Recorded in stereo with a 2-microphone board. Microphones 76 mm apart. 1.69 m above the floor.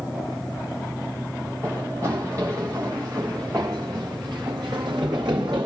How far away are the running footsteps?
About 9 m.